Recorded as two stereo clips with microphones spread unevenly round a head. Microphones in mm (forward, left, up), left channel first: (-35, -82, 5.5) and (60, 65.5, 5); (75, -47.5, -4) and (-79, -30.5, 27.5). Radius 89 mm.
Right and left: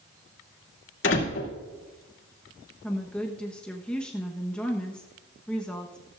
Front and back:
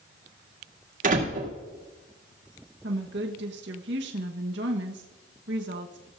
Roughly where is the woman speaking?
Behind left.